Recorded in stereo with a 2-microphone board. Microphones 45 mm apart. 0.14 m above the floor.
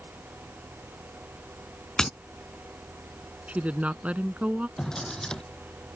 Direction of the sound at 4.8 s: 15° left (ahead or behind).